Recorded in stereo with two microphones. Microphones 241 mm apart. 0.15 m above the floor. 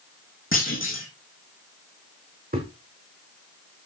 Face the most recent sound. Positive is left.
turn(degrees=-40)  # may be behind; listen again after turning